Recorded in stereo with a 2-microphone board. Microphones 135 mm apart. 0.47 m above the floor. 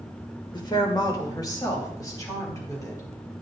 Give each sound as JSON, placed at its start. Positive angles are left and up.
{"t": 0.5, "sound": "a woman speaking", "side_deg": 30, "distance_m": 1.4}